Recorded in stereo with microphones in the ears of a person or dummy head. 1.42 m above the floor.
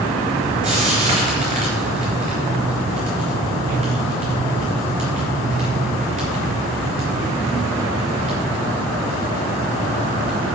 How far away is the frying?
About 4 m.